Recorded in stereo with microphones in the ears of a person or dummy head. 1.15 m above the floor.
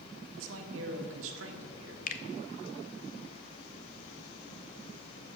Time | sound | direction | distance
0.3 | a man speaking | 75° right (ahead or behind) | 1.4 m
2.1 | a finger snap | 45° left (ahead or behind) | 0.6 m